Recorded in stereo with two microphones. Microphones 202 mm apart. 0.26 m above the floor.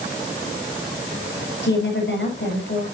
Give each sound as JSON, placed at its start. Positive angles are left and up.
{"t": 1.6, "sound": "a woman speaking", "side_deg": 60, "distance_m": 6.0}